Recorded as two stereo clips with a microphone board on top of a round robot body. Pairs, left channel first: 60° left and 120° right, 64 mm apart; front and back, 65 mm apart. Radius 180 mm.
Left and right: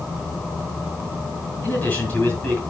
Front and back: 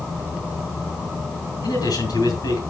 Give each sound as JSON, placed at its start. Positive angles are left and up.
{"t": 1.6, "sound": "a man speaking", "azimuth_deg": 0, "distance_m": 5.0}